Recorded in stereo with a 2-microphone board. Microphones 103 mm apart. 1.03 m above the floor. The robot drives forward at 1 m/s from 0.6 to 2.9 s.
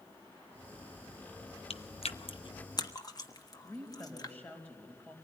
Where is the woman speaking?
15° left (ahead or behind), 5 m.